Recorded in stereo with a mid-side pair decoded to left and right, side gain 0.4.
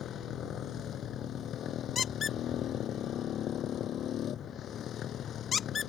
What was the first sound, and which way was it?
A motorcycle, 70° left.